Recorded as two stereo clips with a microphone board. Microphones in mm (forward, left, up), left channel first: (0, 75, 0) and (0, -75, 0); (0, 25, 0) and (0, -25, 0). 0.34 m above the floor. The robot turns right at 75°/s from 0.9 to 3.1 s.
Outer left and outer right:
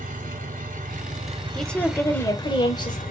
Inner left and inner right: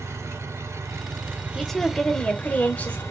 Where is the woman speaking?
5° left, 1.0 m; by 3.0 s 115° left, 1.0 m.